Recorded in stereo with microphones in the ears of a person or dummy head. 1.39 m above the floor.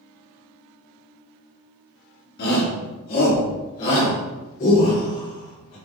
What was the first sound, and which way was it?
A shout, 55° left (ahead or behind).